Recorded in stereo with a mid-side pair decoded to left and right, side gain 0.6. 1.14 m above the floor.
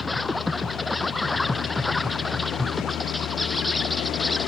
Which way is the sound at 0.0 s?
10° left.